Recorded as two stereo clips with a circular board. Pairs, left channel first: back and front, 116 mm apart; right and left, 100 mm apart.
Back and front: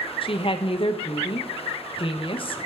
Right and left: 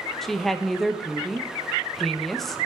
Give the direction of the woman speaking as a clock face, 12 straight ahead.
6 o'clock.